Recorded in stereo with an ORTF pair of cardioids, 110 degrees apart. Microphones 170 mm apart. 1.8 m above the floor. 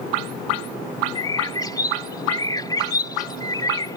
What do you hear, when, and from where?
1.1 s a bird: 25° left